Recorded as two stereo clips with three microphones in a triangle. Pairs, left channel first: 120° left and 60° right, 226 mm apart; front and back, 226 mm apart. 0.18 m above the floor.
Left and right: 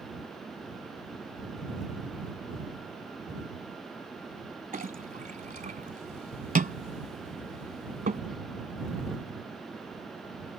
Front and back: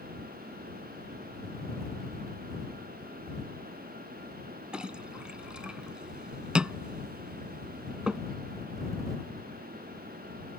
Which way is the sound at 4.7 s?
95° right.